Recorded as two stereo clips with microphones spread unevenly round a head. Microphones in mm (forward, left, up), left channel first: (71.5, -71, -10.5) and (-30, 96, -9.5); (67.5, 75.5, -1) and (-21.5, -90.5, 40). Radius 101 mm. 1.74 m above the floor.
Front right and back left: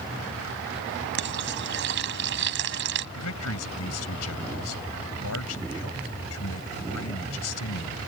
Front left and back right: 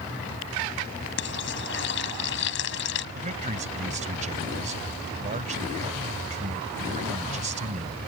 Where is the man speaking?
65° right.